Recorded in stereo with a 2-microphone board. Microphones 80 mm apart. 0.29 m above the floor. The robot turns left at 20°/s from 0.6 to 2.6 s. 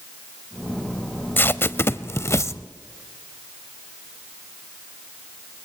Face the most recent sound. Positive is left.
turn(degrees=35)  # may be behind; listen again after turning